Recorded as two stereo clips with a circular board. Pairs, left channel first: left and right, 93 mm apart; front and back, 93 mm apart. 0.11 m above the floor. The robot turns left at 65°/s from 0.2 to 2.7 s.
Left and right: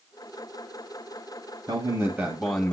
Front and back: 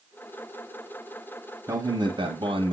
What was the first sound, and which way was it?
A man speaking, 135° right.